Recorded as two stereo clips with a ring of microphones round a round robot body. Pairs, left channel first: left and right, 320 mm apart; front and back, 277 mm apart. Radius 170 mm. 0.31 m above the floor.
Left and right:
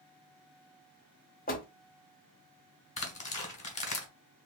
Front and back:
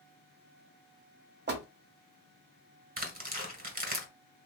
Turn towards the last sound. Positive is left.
turn(degrees=145)